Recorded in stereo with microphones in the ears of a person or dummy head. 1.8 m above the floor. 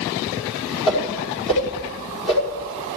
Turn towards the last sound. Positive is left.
turn(degrees=30)  # may be behind; listen again after turning